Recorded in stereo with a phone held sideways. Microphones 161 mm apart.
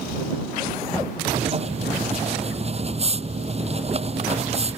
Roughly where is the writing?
Right.